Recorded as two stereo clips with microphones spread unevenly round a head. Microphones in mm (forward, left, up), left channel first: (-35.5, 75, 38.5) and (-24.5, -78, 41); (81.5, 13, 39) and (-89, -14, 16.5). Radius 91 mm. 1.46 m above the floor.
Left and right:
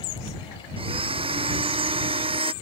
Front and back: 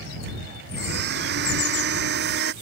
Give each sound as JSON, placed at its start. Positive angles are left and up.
{"t": 0.8, "sound": "a blender", "azimuth_deg": -140}